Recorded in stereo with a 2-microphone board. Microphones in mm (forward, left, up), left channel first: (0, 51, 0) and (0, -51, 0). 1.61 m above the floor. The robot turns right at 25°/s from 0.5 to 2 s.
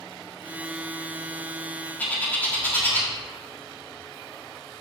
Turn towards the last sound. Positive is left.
turn(degrees=15)  # may be behind; listen again after turning